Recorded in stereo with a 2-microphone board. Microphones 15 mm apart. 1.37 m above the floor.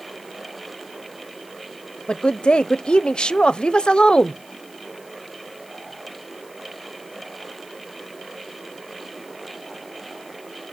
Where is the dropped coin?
No dropped coin in this recording.